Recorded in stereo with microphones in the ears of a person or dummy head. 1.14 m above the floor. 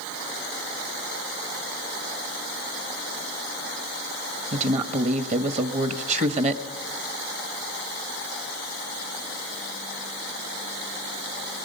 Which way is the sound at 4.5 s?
40° right (ahead or behind).